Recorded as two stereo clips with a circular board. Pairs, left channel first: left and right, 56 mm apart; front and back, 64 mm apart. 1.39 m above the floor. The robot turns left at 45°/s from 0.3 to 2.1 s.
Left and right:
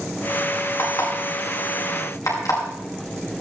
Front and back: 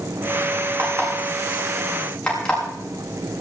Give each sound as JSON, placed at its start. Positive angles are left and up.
{"t": 0.8, "sound": "an alarm clock", "azimuth_deg": 135, "distance_m": 8.0}